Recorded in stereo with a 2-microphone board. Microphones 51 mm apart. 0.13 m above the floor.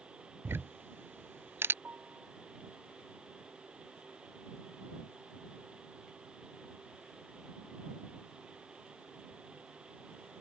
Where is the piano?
40° right (ahead or behind).